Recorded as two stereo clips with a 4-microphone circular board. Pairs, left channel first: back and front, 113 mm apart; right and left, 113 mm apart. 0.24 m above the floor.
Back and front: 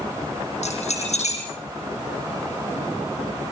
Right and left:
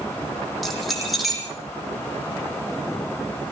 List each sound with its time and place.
0.6 s keys jangling: straight behind, 8.5 m